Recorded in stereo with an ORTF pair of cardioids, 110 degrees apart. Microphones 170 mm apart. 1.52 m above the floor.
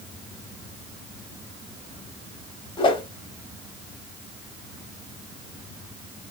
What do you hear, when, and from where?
2.8 s a whoosh: 30° left, 0.8 m